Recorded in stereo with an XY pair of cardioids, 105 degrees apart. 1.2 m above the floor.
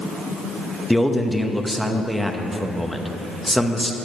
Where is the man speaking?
Straight ahead, 1.0 m.